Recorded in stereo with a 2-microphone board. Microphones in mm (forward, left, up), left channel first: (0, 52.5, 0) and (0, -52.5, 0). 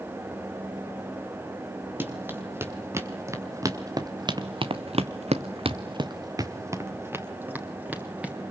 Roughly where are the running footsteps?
Centre.